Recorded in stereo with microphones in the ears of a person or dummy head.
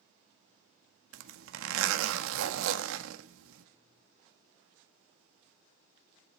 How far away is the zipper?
About 1.6 m.